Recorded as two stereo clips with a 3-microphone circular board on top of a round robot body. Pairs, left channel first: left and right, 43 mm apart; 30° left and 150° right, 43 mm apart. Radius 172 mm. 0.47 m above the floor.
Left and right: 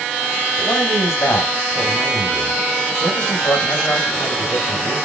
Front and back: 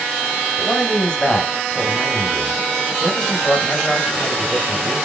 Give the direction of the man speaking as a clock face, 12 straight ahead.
9 o'clock.